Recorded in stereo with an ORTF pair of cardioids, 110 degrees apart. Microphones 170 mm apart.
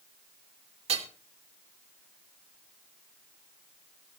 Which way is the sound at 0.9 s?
35° right.